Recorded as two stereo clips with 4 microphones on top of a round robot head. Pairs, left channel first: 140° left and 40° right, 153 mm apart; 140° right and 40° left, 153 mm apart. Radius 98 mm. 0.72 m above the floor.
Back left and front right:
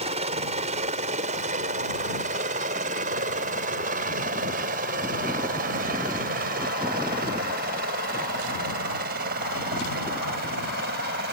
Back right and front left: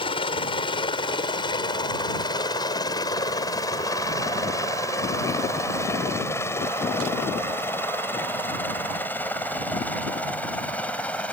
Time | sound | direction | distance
0.0 | a helicopter | 85° right | ?